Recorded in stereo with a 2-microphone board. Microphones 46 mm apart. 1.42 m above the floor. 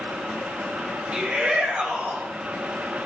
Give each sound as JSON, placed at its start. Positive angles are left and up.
{"t": 1.1, "sound": "a shout", "side_deg": -25, "distance_m": 5.0}